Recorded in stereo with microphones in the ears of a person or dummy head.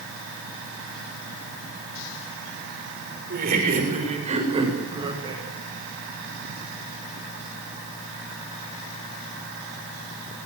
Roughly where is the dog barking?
I don't hear a dog barking.